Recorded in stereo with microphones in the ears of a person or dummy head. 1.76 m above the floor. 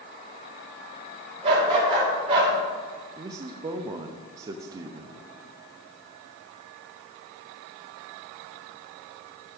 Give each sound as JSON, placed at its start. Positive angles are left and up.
{"t": 1.4, "sound": "a dog barking", "side_deg": -25, "distance_m": 3.0}
{"t": 3.2, "sound": "a man speaking", "side_deg": -25, "distance_m": 0.5}